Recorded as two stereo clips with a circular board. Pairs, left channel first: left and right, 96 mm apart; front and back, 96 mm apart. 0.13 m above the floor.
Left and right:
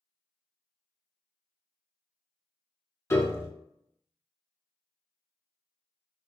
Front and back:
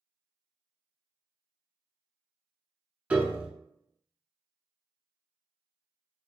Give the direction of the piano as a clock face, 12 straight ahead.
8 o'clock.